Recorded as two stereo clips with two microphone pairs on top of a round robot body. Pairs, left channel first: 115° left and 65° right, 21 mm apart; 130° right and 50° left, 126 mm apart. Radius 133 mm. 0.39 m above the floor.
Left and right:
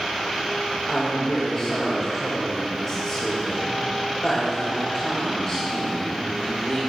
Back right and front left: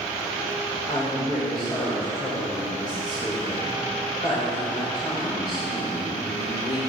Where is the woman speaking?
170° right, 2 m.